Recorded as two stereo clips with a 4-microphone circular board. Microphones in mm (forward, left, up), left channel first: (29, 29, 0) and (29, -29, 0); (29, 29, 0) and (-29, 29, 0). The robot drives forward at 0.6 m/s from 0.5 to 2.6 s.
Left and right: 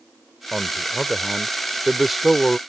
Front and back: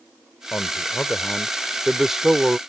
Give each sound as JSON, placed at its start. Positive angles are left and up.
{"t": 0.5, "sound": "a man speaking", "azimuth_deg": 0}